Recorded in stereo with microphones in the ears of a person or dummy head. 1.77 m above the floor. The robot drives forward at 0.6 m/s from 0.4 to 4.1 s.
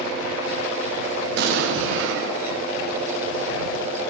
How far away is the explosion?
About 0.8 m.